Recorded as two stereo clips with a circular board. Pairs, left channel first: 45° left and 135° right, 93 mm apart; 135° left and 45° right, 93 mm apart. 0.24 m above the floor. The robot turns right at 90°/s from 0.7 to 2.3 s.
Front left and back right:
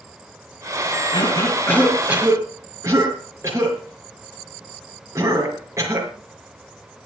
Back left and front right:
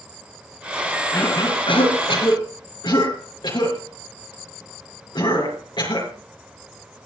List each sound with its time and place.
1.1 s a cough: 60° left, 5 m; by 6.1 s 165° left, 5 m